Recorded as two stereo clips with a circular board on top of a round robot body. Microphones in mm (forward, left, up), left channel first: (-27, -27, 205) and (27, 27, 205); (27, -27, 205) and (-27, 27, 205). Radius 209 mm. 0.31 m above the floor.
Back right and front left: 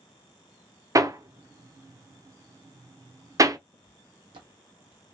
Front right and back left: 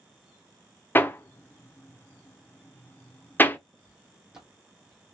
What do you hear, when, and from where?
0.9 s hammering: 15° left, 0.9 m
3.7 s footsteps: 70° left, 1.3 m; by 5.1 s 30° left, 1.2 m